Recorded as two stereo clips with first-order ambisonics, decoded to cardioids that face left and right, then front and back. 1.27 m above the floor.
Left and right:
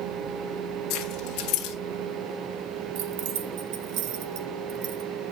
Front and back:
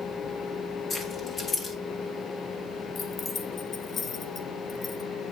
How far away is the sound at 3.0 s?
About 0.9 m.